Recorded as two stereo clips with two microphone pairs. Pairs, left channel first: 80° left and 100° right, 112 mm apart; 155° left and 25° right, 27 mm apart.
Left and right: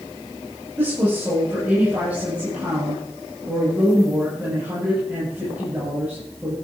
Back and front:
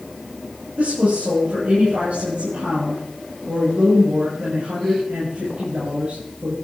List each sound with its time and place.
0.8 s a woman speaking: 25° right, 6 m